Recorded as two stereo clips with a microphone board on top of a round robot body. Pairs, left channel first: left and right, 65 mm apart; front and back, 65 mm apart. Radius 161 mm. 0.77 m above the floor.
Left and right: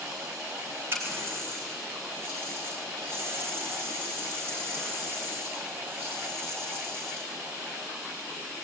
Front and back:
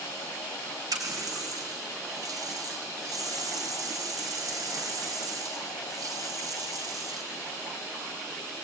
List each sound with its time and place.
0.9 s a running tap: 150° right, 3 m